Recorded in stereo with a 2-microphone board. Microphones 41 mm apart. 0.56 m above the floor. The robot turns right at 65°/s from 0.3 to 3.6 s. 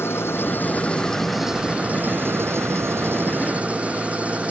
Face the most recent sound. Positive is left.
turn(degrees=-30)